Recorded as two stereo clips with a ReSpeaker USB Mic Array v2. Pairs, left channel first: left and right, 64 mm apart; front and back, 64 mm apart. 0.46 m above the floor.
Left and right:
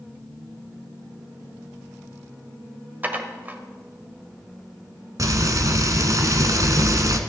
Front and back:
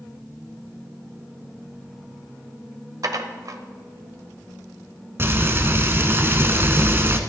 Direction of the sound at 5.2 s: 125° right.